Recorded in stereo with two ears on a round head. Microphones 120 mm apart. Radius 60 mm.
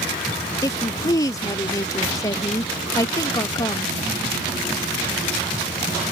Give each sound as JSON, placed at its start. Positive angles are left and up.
{"t": 0.6, "sound": "a woman speaking", "side_deg": 25}